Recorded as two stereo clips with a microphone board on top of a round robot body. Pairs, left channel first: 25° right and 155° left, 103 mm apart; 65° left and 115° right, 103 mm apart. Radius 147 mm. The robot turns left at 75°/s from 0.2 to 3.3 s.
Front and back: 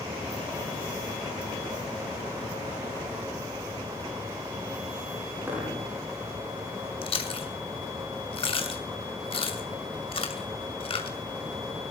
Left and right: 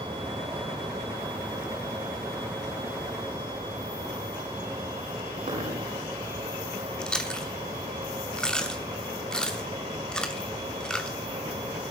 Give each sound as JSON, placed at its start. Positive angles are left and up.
{"t": 5.5, "sound": "a dropped coin", "azimuth_deg": -130, "distance_m": 9.5}
{"t": 7.0, "sound": "chewing", "azimuth_deg": -15, "distance_m": 2.5}